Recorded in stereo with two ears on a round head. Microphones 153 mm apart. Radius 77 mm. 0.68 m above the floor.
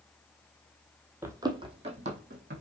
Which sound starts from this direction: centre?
Running footsteps, at 1.2 s.